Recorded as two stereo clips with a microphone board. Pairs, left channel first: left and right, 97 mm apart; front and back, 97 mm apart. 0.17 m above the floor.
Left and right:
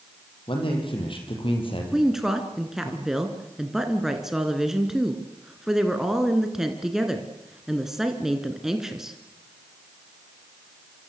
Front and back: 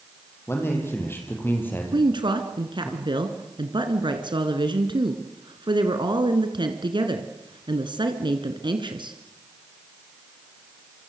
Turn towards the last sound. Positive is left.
turn(degrees=-175)